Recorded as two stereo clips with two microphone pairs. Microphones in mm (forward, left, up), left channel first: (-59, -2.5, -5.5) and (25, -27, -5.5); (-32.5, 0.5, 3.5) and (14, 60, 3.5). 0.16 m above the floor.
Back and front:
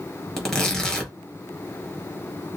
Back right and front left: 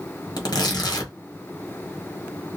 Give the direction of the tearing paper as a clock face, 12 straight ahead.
4 o'clock.